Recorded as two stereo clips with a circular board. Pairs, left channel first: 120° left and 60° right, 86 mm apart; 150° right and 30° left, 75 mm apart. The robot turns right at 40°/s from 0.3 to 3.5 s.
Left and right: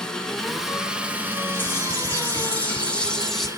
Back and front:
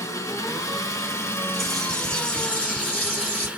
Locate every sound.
0.0 s an engine running: 160° right, 0.8 m; by 3.6 s 30° right, 0.8 m
1.5 s a bird: 125° left, 1.0 m; by 3.5 s 160° right, 1.0 m